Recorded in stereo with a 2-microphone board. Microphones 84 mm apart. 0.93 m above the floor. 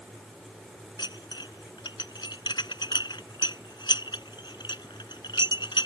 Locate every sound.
1.0 s dishes clattering: 60° left (ahead or behind)